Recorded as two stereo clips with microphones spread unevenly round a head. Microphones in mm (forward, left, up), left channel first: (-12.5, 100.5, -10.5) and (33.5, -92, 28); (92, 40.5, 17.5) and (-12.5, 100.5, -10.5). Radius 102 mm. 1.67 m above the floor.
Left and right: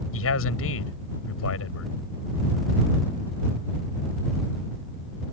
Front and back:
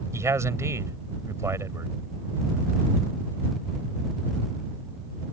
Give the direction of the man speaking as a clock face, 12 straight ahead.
9 o'clock.